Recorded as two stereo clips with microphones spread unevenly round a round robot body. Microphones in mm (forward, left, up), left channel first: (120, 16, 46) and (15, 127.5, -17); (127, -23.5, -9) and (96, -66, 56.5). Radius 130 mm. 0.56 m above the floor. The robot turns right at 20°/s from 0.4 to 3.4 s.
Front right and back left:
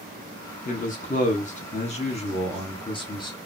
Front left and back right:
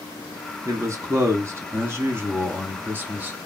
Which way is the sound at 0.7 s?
20° right.